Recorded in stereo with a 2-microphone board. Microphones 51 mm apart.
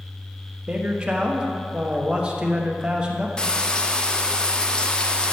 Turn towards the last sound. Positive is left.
turn(degrees=20)  # may be behind; listen again after turning